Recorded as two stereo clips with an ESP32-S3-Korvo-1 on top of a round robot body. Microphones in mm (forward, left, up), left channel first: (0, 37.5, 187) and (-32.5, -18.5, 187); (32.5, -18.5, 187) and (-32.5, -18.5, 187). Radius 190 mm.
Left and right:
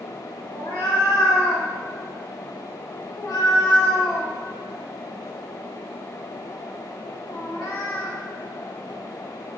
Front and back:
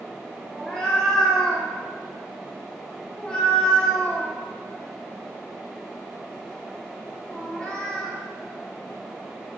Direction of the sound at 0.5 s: 75° left.